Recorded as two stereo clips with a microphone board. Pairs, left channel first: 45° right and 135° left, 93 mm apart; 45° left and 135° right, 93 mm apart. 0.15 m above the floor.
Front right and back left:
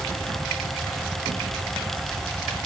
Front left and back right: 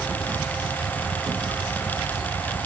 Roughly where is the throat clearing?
I don't hear throat clearing.